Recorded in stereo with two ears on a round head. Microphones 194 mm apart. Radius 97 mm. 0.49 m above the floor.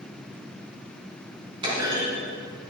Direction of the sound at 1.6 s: 25° right (ahead or behind).